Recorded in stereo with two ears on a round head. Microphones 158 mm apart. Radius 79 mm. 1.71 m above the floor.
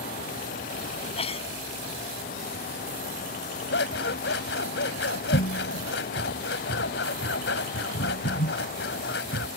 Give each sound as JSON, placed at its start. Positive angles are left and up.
{"t": 1.0, "sound": "a sneeze", "side_deg": 35}
{"t": 3.7, "sound": "scissors", "side_deg": 75}